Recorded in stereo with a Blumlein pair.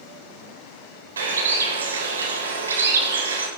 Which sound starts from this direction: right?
A bird, at 1.2 s.